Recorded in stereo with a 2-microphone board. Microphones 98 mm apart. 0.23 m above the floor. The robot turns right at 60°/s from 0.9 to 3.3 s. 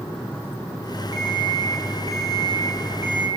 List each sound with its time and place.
1.1 s an alarm clock: 140° right, 4.5 m; by 3.3 s 10° right, 4.5 m